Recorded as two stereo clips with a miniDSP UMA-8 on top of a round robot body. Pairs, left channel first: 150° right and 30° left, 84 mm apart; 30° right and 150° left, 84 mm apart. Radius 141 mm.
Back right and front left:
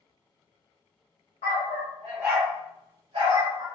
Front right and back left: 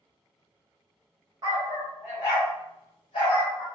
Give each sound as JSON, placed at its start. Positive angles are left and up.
{"t": 1.4, "sound": "a dog barking", "azimuth_deg": -160, "distance_m": 0.6}